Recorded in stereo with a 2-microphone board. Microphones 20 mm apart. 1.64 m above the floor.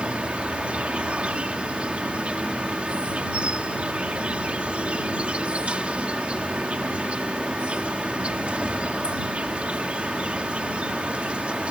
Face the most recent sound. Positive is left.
turn(degrees=-85)